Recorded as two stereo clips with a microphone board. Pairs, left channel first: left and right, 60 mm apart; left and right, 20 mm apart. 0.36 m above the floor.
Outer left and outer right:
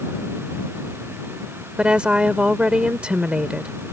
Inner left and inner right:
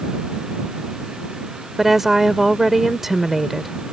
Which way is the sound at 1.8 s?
15° right (ahead or behind).